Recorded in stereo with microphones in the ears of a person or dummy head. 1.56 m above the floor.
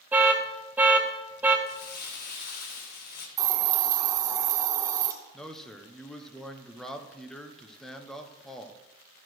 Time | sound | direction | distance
0.1 | an alarm | 10° right (ahead or behind) | 1.0 m
1.7 | crumpling | 50° left (ahead or behind) | 1.5 m
3.4 | a hiss | 20° right (ahead or behind) | 1.2 m
5.3 | a man speaking | 5° left (ahead or behind) | 1.0 m